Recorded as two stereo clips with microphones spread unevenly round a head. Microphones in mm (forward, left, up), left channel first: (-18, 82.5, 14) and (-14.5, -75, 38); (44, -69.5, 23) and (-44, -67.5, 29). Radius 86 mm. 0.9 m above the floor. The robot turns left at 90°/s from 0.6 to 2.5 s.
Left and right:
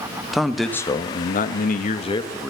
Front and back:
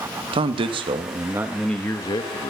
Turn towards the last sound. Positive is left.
turn(degrees=5)